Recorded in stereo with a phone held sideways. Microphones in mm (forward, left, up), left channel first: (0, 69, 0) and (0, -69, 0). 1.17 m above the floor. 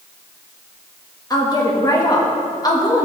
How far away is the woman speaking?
About 1.5 m.